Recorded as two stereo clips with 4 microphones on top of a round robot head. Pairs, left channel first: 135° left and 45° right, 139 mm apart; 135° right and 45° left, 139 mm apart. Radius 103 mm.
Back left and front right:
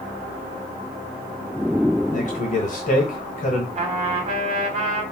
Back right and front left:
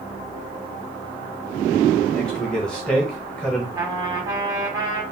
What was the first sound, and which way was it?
A man speaking, 145° left.